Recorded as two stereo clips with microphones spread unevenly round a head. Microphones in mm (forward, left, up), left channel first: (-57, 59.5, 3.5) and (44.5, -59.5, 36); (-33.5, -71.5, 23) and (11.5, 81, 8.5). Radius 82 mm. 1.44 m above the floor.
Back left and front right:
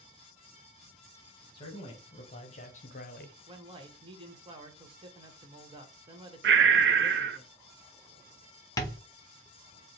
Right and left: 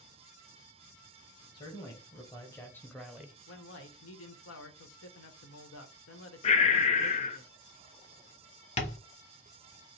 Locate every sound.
1.5 s a man speaking: 170° right, 1.5 m; by 3.4 s 150° left, 0.6 m
3.5 s a man speaking: 110° right, 1.1 m
6.4 s breathing: 55° right, 0.5 m
8.8 s tapping: 160° right, 1.0 m